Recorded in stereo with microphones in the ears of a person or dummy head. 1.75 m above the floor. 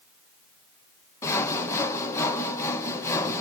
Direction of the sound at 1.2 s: 15° left (ahead or behind).